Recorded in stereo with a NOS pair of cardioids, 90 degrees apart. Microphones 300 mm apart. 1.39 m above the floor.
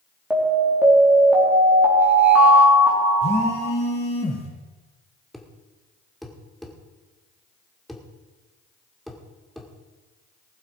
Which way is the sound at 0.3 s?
5° right.